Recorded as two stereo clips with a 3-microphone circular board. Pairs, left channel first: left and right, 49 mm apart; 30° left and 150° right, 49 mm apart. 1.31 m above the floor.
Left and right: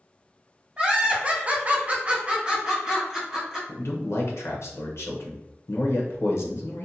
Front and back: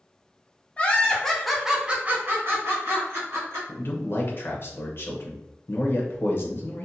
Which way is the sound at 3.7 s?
65° left.